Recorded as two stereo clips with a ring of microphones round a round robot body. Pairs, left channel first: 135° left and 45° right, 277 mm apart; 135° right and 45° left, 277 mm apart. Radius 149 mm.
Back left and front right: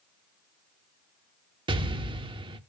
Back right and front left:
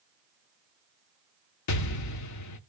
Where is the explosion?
120° right, 0.9 m.